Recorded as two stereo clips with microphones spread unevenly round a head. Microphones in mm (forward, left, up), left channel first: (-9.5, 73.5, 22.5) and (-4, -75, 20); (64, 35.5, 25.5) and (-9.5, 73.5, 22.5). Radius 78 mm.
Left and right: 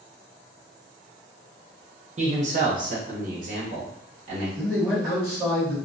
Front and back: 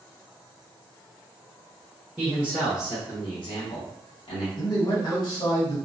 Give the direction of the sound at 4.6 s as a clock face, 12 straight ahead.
12 o'clock.